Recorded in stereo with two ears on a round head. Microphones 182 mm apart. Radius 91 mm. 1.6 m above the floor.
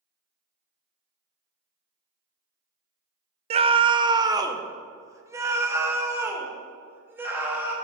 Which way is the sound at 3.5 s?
30° right (ahead or behind).